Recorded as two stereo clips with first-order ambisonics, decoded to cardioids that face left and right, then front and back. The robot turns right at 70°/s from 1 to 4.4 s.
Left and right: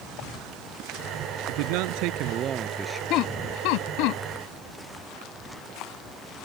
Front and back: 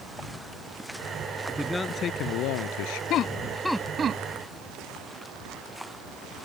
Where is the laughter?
45° left; by 4.2 s 125° left.